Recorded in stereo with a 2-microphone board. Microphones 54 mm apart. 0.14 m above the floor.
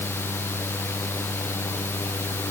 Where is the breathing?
No breathing in this recording.